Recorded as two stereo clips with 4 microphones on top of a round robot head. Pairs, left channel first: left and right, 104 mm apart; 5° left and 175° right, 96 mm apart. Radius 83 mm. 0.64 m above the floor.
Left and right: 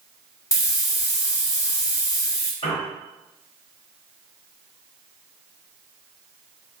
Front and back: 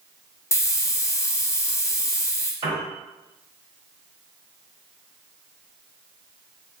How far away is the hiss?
About 0.9 m.